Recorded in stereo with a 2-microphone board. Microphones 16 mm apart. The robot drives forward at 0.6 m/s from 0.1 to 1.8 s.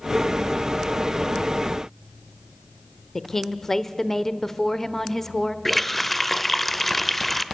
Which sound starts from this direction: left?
A woman speaking, at 3.1 s.